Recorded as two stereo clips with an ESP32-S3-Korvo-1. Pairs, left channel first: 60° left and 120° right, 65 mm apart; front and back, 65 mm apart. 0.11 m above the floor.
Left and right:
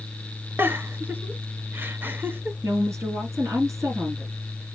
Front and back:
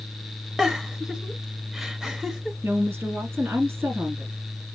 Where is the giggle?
105° right, 0.8 m.